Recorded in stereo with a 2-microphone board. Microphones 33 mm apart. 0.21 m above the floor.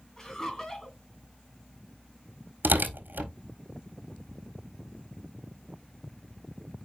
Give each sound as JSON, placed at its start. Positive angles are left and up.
{"t": 0.2, "sound": "laughter", "side_deg": 20, "distance_m": 2.5}
{"t": 2.6, "sound": "tearing paper", "side_deg": -80, "distance_m": 1.5}